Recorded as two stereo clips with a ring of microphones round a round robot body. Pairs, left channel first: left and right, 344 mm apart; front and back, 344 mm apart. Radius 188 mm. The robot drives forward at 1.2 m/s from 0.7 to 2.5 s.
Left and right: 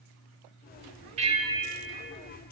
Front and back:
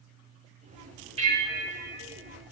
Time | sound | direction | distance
1.2 | a bell | 135° right | 1.0 m